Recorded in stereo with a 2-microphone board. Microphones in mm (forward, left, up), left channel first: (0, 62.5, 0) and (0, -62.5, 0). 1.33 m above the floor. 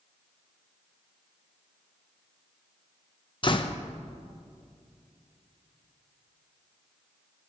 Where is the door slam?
40° left (ahead or behind), 0.7 m.